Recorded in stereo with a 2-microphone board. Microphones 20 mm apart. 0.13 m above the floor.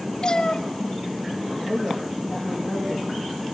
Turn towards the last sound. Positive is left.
turn(degrees=-60)  # may be behind; listen again after turning